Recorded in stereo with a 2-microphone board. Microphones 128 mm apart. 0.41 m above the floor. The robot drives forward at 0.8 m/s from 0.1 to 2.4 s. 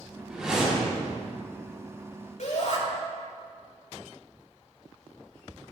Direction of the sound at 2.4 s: 75° left (ahead or behind).